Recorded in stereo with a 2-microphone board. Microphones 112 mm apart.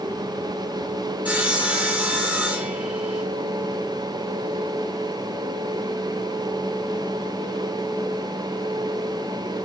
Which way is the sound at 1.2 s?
15° right (ahead or behind).